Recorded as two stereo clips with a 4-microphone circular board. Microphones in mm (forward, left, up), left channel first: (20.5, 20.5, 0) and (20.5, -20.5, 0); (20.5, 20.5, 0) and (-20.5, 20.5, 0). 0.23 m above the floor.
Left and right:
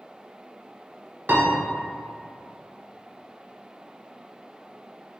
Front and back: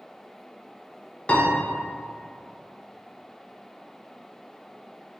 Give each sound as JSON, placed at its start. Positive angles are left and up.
{"t": 1.3, "sound": "a piano", "azimuth_deg": -60, "distance_m": 0.6}